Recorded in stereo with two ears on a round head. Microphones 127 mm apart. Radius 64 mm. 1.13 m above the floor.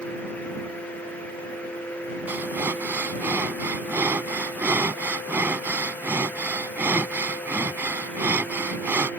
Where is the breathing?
15° right (ahead or behind).